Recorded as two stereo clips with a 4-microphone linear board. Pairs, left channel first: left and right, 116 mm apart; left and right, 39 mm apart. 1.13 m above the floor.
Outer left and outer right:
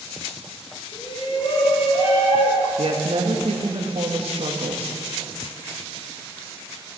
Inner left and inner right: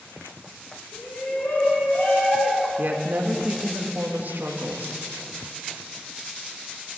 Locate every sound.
0.9 s a shout: 50° left (ahead or behind), 3 m; by 2.7 s 65° left (ahead or behind), 2 m
2.8 s a woman speaking: 60° right (ahead or behind), 1.7 m